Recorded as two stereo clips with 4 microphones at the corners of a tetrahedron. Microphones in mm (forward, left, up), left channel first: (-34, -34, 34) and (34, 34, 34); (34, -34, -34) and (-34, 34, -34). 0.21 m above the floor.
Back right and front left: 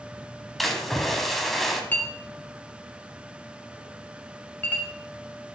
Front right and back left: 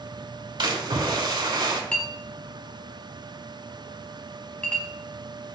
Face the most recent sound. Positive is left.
turn(degrees=-105)